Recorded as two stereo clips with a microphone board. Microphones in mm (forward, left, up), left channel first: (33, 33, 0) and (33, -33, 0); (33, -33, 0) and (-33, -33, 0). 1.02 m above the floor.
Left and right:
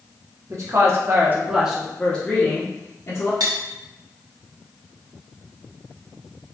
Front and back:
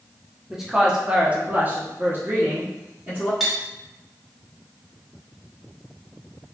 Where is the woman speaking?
95° right, 1.2 m; by 3.3 s 125° left, 1.4 m.